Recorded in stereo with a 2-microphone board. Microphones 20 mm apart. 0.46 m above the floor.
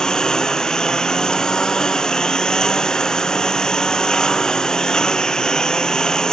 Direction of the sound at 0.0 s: 40° left (ahead or behind).